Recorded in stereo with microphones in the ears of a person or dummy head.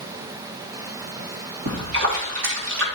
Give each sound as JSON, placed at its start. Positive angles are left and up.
{"t": 1.7, "sound": "a splash", "side_deg": -75, "distance_m": 2.5}